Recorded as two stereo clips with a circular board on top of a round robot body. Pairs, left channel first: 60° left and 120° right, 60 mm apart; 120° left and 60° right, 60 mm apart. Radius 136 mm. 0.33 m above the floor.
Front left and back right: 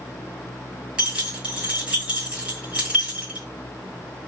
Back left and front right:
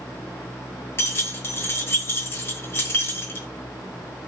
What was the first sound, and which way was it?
Keys jangling, 165° left.